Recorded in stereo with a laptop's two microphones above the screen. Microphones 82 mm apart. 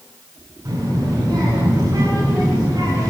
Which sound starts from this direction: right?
A child speaking, at 0.7 s.